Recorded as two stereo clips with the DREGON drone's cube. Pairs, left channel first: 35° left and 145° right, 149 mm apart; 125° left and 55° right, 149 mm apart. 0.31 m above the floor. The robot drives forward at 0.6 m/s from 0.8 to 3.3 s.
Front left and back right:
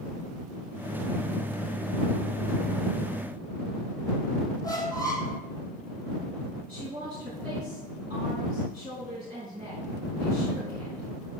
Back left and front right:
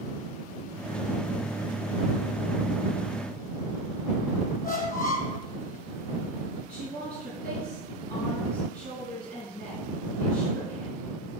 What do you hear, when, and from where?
4.6 s a squeak: 100° left, 1.6 m
6.7 s a woman speaking: 160° left, 4.5 m